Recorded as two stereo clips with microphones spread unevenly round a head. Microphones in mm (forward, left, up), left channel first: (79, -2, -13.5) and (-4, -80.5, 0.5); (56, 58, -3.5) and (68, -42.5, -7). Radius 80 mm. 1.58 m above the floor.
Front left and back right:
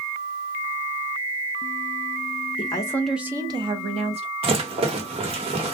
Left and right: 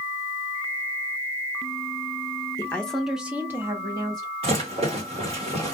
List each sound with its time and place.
2.6 s a woman speaking: 40° left, 0.6 m; by 4.3 s 145° right, 1.0 m
4.4 s a rattle: 115° right, 1.2 m